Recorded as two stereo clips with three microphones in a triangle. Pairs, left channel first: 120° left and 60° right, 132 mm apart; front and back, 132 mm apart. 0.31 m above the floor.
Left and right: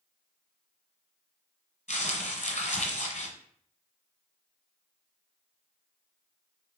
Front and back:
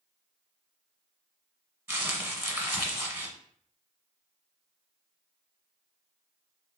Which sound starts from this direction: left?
Crumpling, at 1.9 s.